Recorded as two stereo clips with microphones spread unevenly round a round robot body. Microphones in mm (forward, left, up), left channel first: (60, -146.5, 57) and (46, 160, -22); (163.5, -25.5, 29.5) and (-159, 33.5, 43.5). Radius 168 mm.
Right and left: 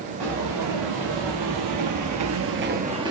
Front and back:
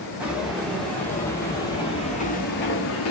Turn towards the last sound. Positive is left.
turn(degrees=0)